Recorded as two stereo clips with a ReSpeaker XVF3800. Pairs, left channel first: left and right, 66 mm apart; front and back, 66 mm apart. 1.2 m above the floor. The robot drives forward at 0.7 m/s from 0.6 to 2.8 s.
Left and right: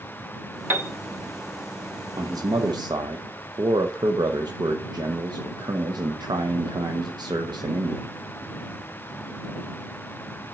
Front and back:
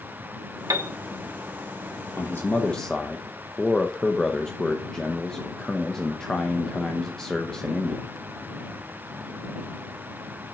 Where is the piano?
150° right, 0.9 m.